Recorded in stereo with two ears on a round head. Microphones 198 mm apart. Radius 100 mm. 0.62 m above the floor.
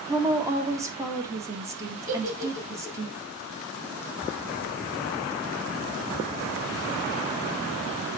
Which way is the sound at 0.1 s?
15° right (ahead or behind).